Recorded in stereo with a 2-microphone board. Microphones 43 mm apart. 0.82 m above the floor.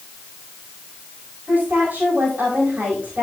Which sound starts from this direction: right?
A woman speaking, at 1.5 s.